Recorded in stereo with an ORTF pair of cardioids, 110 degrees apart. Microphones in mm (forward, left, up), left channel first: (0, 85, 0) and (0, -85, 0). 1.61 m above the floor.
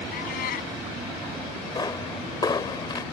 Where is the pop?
25° left.